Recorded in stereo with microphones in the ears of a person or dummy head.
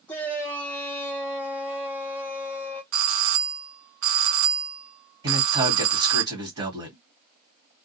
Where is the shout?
15° left (ahead or behind), 0.7 m.